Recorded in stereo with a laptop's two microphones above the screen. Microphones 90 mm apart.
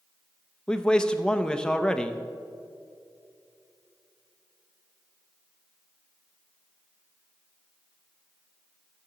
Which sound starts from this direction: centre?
A man speaking, at 0.7 s.